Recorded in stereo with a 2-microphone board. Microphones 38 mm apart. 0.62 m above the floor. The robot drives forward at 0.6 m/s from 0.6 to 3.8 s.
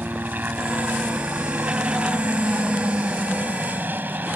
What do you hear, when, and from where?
0.0 s a helicopter: 50° right (ahead or behind)